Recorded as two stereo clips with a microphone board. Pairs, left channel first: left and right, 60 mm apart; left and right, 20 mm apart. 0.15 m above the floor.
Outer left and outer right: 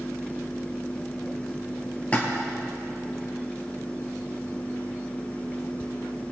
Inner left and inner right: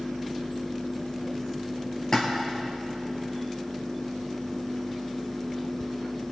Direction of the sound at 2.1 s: 25° left (ahead or behind).